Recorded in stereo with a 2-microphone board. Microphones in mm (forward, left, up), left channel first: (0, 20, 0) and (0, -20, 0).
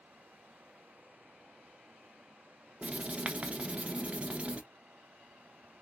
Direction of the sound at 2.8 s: 30° right (ahead or behind).